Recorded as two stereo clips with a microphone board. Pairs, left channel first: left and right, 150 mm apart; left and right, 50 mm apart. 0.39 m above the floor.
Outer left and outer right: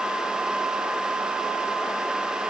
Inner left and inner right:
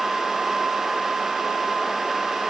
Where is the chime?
I don't hear a chime.